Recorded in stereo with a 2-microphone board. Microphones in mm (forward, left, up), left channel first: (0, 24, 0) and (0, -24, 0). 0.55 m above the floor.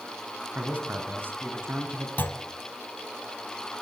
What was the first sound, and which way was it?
A man speaking, 35° right (ahead or behind).